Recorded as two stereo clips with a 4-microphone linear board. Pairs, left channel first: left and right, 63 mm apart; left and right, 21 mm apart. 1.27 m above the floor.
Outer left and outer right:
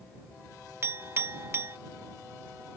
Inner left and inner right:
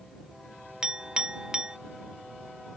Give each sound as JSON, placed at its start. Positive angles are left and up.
{"t": 0.8, "sound": "a clink", "side_deg": -40}